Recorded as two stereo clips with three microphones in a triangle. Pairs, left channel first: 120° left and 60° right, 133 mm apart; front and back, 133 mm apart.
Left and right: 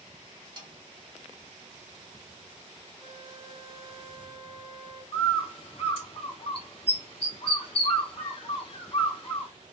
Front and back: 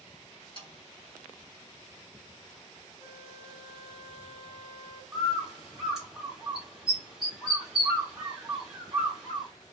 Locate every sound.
0.6 s a snare drum: 30° right, 1.4 m
3.0 s a flute: 50° left, 1.6 m
5.1 s a bird: 95° left, 1.6 m